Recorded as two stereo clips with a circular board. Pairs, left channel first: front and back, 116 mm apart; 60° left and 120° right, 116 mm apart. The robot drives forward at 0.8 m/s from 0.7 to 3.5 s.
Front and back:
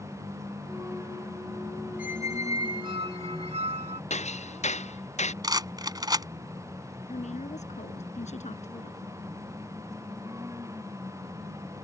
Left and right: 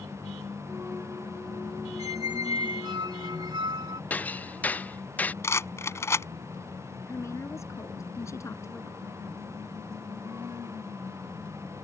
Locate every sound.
2.0 s a squeak: 115° right; by 4.0 s 165° right
4.1 s hammering: 15° right
5.4 s a rattle: 125° left
7.1 s a woman speaking: 5° right